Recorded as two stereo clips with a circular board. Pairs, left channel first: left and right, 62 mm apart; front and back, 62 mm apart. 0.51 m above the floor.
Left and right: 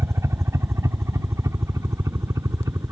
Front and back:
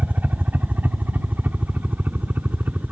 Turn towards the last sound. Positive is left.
turn(degrees=-120)